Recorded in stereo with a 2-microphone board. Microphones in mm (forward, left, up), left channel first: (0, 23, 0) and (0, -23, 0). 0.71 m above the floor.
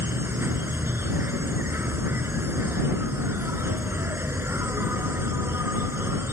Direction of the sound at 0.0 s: 60° right (ahead or behind).